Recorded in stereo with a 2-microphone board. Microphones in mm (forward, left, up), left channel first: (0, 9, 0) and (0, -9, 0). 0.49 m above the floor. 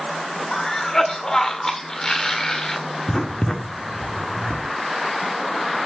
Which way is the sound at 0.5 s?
30° left (ahead or behind).